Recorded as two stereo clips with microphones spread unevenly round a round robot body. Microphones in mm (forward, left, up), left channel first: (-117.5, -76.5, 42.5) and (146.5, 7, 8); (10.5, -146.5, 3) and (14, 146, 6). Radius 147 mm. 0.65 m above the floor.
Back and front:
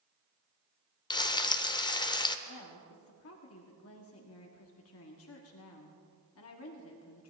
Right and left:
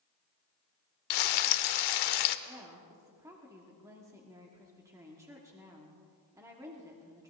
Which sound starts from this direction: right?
Frying, at 1.1 s.